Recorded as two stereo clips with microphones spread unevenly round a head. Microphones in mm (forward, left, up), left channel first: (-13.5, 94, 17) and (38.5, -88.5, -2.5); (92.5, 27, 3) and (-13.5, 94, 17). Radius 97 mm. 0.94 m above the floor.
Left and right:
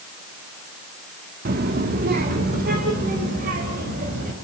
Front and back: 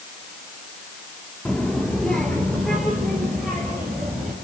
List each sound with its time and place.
1.4 s a child speaking: 120° right, 1.0 m; by 4.3 s 125° right, 3.5 m